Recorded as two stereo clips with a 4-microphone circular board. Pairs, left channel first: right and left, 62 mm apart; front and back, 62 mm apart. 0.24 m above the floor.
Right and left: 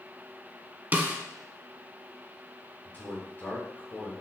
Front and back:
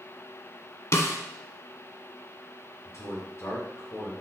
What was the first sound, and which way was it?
A snare drum, 35° left.